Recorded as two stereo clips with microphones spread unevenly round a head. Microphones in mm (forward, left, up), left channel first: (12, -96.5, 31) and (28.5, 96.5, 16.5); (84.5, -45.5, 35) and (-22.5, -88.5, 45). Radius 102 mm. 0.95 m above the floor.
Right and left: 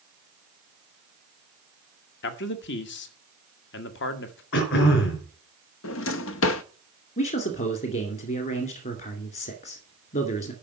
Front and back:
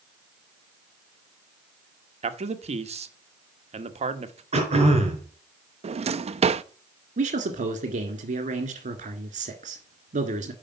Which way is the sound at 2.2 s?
130° right.